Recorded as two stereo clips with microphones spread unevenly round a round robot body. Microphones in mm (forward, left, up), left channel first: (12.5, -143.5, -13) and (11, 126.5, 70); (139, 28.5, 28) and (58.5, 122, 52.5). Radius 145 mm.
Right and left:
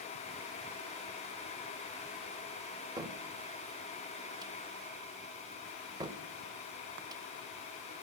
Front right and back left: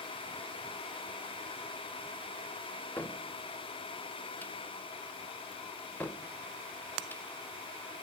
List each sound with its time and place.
3.0 s a cupboard door: straight ahead, 0.9 m